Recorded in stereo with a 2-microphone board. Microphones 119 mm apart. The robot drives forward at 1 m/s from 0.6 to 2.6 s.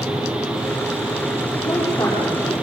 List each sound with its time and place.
1.6 s a woman speaking: 30° left (ahead or behind), 6.5 m; by 2.5 s 25° left (ahead or behind), 7 m